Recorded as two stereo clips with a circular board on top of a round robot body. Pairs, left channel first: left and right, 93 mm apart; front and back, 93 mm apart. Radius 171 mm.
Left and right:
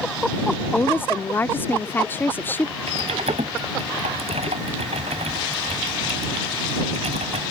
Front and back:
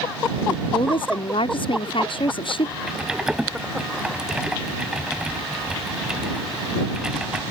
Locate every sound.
0.5 s a woman speaking: 20° left
2.9 s typing on a keyboard: 100° right